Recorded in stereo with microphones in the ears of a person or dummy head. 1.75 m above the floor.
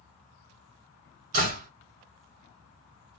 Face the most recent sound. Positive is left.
turn(degrees=-45)  # may be behind; listen again after turning